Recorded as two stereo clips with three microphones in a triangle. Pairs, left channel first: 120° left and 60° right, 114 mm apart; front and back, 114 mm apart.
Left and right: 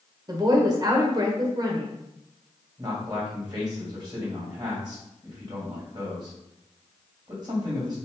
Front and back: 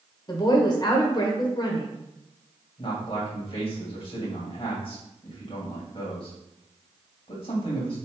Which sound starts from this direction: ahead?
A man speaking, at 2.8 s.